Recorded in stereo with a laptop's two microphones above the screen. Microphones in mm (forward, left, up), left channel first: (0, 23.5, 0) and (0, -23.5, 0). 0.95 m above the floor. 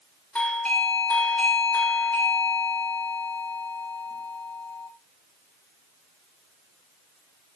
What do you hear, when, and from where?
0.3 s a doorbell: 30° left (ahead or behind), 1.2 m